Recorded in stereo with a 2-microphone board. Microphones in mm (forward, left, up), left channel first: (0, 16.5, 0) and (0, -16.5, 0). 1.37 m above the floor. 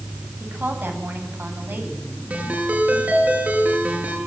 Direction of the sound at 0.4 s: 80° right.